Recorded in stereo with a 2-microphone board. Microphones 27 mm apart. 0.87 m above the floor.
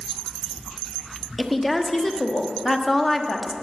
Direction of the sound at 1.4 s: 5° left (ahead or behind).